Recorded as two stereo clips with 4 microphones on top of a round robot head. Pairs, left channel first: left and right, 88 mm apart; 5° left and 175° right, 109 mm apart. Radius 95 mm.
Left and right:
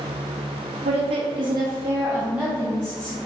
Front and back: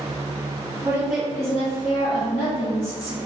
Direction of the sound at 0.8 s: 105° right.